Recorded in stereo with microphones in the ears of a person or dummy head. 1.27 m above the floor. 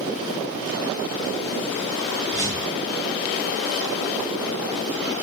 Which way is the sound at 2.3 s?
20° left (ahead or behind).